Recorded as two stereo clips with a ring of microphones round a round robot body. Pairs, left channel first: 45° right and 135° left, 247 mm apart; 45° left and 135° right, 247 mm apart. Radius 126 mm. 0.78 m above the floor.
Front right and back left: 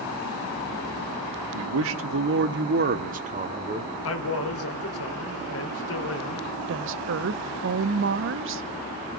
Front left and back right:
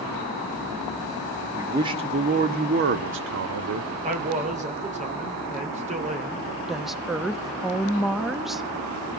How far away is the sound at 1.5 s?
About 1.2 m.